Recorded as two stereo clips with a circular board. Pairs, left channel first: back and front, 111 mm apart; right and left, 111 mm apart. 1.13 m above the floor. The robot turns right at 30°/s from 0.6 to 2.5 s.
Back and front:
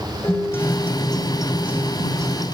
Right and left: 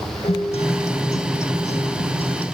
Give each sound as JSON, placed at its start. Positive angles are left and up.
{"t": 0.2, "sound": "a guitar", "azimuth_deg": -115, "distance_m": 2.5}